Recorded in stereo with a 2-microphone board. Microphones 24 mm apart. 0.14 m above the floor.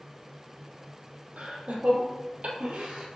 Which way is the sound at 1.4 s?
70° right (ahead or behind).